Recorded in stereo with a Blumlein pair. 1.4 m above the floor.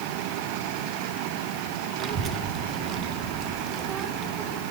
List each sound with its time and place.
2.0 s a child speaking: 30° right, 0.6 m